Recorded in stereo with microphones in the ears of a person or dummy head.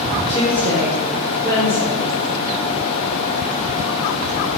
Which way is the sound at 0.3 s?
45° right (ahead or behind).